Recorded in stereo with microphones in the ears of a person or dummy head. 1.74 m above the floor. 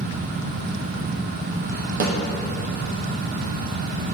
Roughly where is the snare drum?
Right.